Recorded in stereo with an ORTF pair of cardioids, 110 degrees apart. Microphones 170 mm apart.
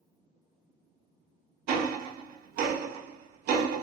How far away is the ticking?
About 0.6 m.